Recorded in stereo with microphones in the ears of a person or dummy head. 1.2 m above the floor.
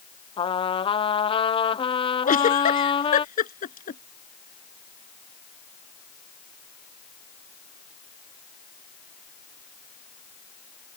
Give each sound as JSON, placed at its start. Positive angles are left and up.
{"t": 0.4, "sound": "a trumpet", "side_deg": 35}
{"t": 2.2, "sound": "a giggle", "side_deg": 45}